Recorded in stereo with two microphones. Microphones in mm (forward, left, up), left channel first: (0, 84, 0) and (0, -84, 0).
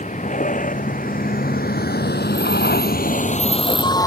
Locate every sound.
0.0 s a vehicle: 50° left (ahead or behind); by 4.1 s 20° left (ahead or behind)